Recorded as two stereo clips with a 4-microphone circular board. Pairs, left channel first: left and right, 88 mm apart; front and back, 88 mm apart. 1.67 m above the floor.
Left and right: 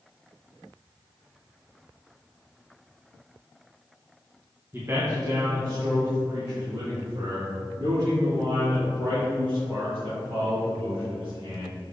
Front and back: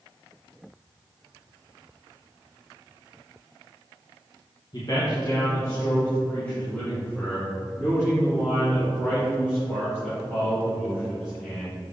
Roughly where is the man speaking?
Ahead right.